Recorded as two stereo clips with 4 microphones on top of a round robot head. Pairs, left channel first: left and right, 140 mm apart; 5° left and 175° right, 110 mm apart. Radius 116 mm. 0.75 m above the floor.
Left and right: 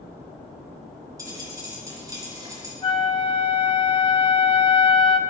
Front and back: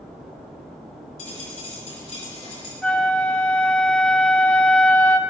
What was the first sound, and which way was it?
A dropped coin, 25° right.